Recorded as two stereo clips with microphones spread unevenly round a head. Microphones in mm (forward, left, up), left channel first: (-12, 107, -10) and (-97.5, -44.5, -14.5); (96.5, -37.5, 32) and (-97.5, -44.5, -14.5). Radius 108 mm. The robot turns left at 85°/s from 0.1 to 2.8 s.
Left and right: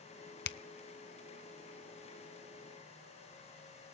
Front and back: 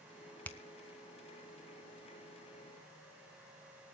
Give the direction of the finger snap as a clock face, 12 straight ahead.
9 o'clock.